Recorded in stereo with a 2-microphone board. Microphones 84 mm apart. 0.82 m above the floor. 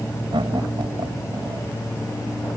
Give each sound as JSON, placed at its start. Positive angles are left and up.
{"t": 0.3, "sound": "laughter", "side_deg": -80}